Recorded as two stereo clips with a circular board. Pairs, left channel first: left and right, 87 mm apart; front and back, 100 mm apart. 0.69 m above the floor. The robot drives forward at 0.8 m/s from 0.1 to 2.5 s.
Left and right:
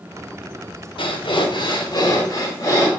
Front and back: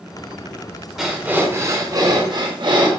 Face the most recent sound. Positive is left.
turn(degrees=140)